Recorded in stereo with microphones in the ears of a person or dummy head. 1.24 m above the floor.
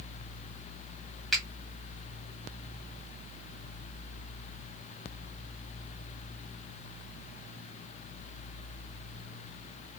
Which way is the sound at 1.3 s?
Centre (ahead or behind).